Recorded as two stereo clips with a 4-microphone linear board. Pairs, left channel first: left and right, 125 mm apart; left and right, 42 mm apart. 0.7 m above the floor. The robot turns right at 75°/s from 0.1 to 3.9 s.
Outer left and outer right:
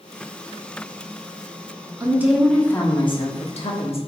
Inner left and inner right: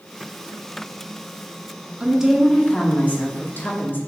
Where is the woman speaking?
30° right, 1.0 m; by 4.0 s 110° left, 1.0 m.